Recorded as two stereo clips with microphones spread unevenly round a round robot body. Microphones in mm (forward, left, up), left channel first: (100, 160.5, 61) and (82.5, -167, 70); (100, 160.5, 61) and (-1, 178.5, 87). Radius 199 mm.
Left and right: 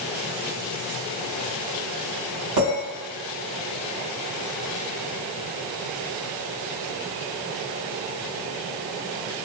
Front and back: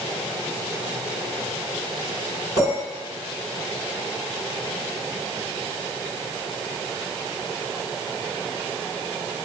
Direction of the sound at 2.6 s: 135° right.